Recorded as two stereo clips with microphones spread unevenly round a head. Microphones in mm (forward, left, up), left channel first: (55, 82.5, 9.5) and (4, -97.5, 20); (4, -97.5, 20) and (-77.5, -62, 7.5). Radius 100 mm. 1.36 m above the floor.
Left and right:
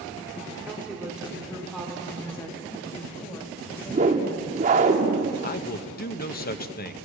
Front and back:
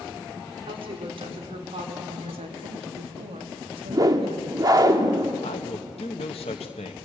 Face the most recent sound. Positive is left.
turn(degrees=30)